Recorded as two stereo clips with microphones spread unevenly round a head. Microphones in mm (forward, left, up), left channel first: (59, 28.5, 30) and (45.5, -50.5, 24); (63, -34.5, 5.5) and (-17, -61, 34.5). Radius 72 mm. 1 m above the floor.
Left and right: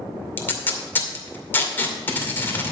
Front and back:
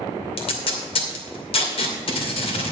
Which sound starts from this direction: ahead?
Tape being pulled, at 0.4 s.